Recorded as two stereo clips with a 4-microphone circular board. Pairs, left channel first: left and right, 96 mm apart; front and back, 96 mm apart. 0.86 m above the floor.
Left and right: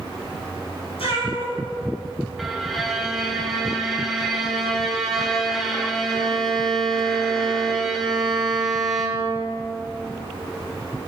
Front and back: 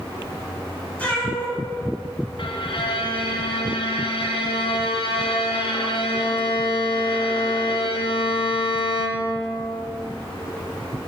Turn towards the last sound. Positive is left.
turn(degrees=0)